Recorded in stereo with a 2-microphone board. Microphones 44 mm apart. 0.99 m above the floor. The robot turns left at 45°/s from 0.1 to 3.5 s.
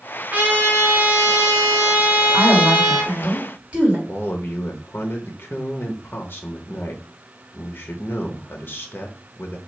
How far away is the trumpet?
About 1.6 m.